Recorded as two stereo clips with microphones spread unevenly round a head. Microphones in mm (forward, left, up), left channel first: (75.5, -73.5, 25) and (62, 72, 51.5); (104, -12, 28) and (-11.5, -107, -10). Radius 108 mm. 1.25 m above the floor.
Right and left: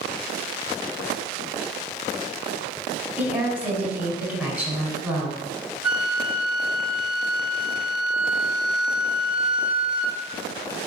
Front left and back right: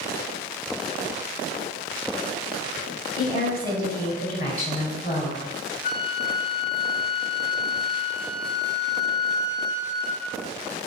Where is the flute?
15° left, 3 m.